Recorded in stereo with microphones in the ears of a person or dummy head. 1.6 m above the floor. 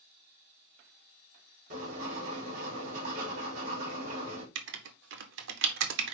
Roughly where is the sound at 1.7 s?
Right.